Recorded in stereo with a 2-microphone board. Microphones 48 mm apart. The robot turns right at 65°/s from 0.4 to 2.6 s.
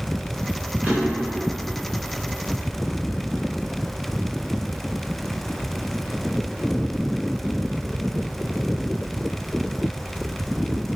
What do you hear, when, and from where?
0.8 s a drawer: 35° right (ahead or behind), 1.5 m; by 1.4 s centre (ahead or behind), 1.5 m